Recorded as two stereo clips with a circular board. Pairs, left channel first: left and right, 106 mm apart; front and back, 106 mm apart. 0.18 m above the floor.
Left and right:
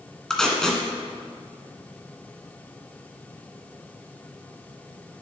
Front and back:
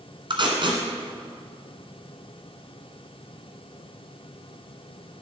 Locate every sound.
0.3 s tape being pulled: 175° left, 1.8 m